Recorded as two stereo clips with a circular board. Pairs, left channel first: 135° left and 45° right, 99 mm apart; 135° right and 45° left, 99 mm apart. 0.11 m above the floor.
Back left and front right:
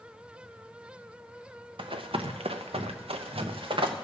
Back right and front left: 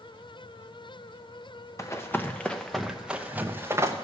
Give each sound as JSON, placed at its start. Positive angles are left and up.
{"t": 1.8, "sound": "running footsteps", "azimuth_deg": -75, "distance_m": 1.1}